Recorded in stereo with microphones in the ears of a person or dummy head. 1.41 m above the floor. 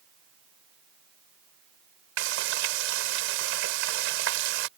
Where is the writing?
I don't hear writing.